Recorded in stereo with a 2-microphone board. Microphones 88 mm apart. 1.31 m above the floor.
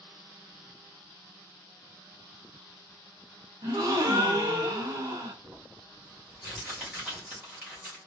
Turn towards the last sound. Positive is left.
turn(degrees=-25)  # may be behind; listen again after turning